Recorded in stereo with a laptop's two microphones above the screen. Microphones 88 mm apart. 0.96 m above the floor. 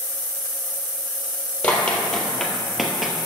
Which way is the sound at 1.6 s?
15° left (ahead or behind).